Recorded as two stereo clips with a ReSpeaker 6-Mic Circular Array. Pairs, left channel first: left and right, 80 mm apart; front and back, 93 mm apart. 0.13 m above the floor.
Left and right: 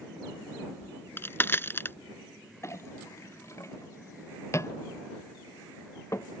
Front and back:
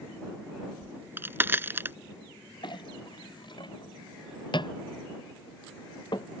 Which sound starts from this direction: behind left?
A crack, at 0.8 s.